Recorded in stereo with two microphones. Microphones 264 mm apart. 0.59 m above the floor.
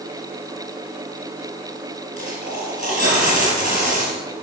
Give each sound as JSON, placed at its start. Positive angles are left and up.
{"t": 2.2, "sound": "a dropped coin", "side_deg": -30, "distance_m": 4.5}